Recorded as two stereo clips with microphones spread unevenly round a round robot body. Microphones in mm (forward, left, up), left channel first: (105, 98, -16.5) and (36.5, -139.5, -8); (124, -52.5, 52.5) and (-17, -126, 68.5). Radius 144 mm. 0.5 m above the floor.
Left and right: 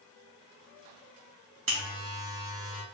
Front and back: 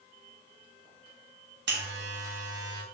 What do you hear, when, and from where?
1.7 s a buzzer: 155° right, 1.0 m